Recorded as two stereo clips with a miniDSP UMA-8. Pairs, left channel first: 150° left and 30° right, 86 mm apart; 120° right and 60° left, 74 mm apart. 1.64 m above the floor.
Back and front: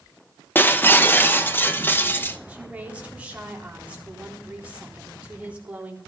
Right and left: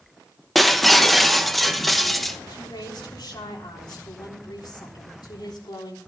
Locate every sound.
0.6 s breaking glass: 155° left, 0.8 m
2.5 s a woman speaking: 105° right, 3.5 m